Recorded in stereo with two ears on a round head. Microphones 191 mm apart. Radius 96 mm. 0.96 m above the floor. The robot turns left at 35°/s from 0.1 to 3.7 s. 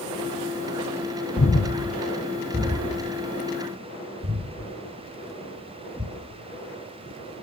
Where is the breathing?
30° left (ahead or behind), 1.5 m; by 6.1 s 45° right (ahead or behind), 1.5 m.